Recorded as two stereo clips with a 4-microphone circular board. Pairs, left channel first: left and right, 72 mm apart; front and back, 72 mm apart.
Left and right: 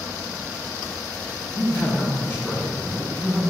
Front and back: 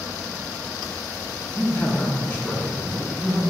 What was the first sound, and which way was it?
A man speaking, 60° left.